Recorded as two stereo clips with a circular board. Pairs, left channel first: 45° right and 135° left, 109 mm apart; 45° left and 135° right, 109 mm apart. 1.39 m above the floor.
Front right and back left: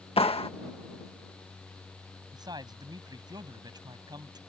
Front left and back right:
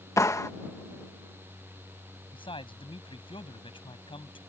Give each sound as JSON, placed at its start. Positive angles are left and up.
{"t": 0.2, "sound": "a clap", "azimuth_deg": -15}
{"t": 2.3, "sound": "a man speaking", "azimuth_deg": 85}